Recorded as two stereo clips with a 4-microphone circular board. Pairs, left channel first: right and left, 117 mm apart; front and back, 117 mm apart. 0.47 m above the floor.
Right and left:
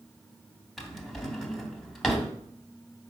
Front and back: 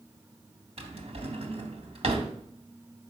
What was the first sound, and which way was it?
A drawer, straight behind.